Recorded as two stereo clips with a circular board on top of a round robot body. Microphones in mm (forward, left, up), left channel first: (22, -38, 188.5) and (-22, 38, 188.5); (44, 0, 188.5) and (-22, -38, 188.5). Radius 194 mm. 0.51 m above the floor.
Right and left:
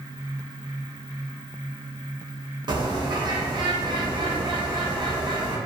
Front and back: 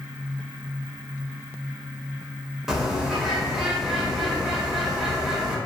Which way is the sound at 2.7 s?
125° left.